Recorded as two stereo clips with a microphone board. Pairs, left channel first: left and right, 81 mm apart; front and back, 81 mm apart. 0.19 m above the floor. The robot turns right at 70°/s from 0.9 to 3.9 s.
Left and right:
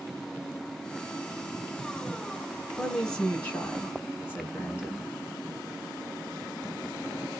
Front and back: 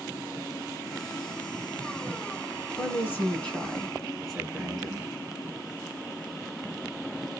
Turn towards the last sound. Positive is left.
turn(degrees=80)